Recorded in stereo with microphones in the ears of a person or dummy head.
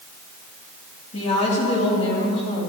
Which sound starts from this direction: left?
A woman speaking, at 1.1 s.